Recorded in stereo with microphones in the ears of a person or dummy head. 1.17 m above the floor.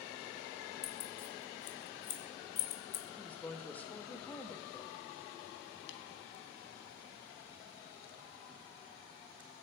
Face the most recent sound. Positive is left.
turn(degrees=70)  # may be behind; listen again after turning